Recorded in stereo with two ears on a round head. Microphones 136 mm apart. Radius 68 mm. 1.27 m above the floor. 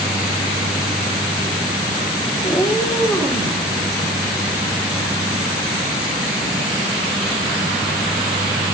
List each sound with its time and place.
2.4 s a cat meowing: 15° left (ahead or behind), 0.8 m; by 3.6 s centre (ahead or behind), 2.0 m